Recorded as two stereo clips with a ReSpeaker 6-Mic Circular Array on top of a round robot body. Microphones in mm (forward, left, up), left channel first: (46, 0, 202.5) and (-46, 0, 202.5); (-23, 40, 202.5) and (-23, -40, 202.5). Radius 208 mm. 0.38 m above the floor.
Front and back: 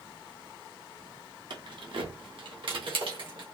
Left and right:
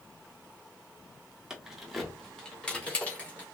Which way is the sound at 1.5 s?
170° right.